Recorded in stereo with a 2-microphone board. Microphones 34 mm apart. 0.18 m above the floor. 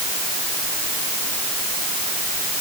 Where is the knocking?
No knocking in this recording.